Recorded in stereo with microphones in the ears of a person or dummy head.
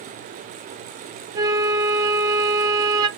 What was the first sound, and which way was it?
A flute, 20° right (ahead or behind).